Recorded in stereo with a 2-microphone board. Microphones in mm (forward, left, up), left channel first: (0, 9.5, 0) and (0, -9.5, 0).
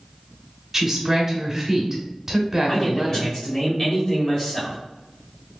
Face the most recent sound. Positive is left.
turn(degrees=30)  # may be behind; listen again after turning